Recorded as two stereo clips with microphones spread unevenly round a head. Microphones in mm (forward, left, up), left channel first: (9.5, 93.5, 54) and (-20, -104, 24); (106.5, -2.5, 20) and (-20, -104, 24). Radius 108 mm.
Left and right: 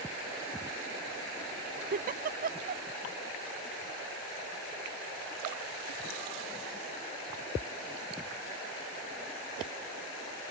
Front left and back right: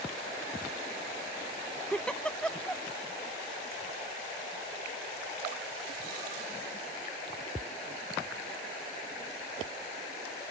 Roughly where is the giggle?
Ahead right.